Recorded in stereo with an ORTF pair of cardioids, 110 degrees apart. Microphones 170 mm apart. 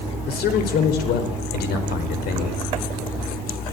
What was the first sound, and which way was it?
A man speaking, 70° left.